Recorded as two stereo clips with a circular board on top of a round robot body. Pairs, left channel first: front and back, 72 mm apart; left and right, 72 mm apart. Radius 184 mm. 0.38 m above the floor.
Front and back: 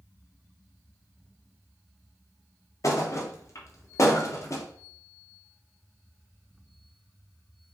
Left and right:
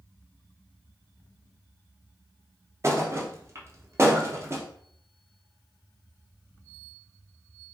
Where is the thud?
40° right, 0.7 m.